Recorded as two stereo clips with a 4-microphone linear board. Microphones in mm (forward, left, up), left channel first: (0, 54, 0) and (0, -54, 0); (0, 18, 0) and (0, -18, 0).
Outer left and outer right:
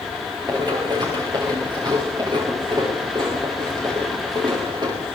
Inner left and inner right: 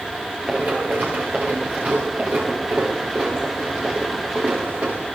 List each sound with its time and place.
0.5 s running footsteps: 40° right (ahead or behind), 5.5 m